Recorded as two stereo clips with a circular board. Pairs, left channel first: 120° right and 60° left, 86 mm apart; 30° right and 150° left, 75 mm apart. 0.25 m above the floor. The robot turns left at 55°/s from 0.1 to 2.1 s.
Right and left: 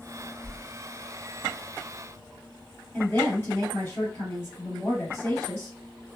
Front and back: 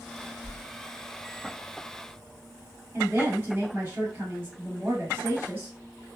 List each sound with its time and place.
0.4 s a whoosh: 40° right, 1.2 m; by 0.6 s 50° right, 1.2 m
2.9 s a woman speaking: 170° right, 1.9 m